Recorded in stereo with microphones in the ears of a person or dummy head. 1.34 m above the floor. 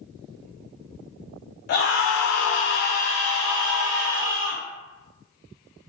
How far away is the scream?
About 0.7 m.